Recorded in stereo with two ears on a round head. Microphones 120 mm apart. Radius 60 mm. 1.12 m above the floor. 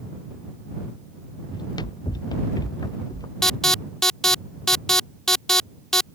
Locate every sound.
1.5 s running footsteps: 30° left (ahead or behind); by 3.3 s 25° left (ahead or behind)
3.4 s an alarm: 5° left (ahead or behind)